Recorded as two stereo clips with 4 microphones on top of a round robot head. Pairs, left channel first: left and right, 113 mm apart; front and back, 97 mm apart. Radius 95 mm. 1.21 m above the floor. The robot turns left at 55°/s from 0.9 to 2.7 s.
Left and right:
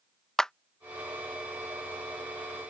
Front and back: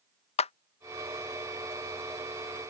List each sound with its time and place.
0.4 s a clap: 5° left